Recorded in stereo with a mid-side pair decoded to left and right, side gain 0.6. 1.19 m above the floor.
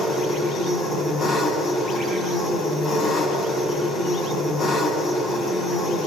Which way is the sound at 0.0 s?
45° left.